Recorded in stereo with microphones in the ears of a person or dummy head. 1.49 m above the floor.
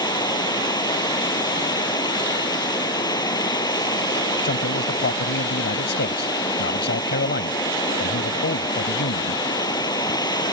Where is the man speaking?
55° left (ahead or behind).